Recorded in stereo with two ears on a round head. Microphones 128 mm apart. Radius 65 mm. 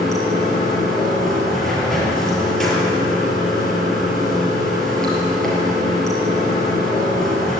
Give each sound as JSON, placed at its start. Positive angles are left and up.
{"t": 0.0, "sound": "running water", "side_deg": 5, "distance_m": 6.5}